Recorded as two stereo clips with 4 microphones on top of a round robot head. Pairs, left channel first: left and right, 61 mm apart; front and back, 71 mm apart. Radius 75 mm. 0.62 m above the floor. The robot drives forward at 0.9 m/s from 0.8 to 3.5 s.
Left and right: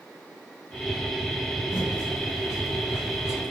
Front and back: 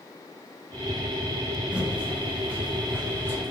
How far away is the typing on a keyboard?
About 3.5 m.